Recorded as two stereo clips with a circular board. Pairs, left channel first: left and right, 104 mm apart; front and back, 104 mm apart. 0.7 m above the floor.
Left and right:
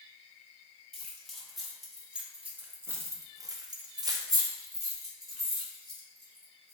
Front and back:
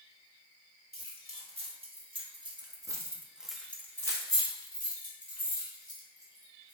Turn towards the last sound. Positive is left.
turn(degrees=-25)